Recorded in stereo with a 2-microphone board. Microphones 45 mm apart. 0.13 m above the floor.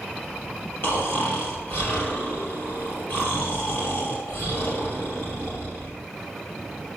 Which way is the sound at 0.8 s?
55° left (ahead or behind).